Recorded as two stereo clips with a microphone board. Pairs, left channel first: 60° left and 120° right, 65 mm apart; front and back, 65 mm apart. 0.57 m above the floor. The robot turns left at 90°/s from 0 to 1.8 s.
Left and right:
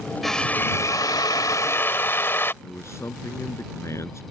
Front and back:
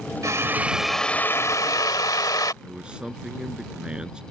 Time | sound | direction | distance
0.2 | a drill | 150° left | ?
2.6 | a man speaking | 105° left | ?